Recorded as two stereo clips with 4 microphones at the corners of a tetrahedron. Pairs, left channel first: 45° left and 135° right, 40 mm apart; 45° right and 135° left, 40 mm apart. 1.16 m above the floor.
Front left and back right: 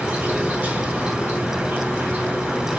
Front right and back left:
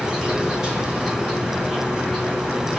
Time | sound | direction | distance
0.0 | an insect | 150° right | 2 m